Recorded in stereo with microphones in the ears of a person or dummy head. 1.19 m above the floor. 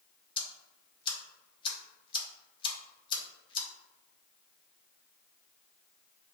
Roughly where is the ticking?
Left.